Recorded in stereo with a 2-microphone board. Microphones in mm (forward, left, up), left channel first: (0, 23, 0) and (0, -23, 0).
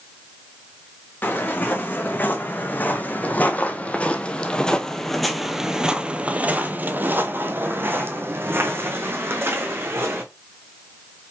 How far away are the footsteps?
About 2.5 m.